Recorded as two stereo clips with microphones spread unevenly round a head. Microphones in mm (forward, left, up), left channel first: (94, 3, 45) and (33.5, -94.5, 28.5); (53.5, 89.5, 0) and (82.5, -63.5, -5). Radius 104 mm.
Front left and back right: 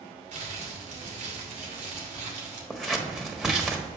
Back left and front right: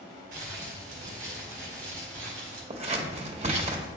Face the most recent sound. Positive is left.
turn(degrees=-35)